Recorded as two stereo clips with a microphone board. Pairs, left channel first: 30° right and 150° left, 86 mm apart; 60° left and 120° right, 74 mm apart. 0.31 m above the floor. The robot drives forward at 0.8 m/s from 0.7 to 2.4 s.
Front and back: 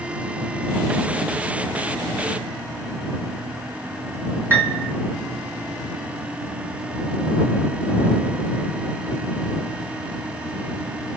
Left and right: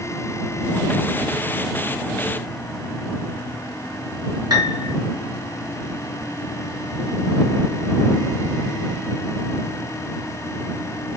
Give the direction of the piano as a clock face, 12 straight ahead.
5 o'clock.